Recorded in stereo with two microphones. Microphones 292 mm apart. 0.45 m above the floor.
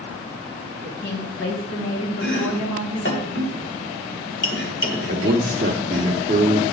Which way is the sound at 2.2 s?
40° left (ahead or behind).